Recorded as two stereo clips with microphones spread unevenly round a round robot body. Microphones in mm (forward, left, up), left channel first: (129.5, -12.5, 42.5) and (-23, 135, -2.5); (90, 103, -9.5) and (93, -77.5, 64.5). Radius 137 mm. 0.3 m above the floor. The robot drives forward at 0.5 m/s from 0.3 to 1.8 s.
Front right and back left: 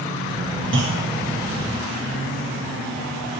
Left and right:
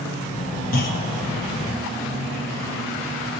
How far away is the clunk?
About 4.5 m.